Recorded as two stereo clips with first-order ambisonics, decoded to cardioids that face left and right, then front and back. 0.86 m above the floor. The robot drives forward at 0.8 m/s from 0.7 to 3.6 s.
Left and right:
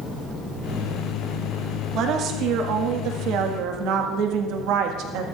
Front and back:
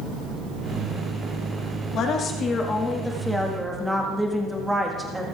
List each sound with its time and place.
1.9 s a woman speaking: 50° right, 2.0 m; by 5.2 s 95° right, 1.6 m